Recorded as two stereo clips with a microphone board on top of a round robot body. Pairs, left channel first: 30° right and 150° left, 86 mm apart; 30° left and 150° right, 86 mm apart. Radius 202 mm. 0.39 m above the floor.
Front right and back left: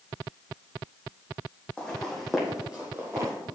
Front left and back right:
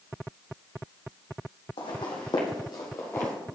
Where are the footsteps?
55° left, 1.6 m; by 3.4 s 105° left, 0.8 m.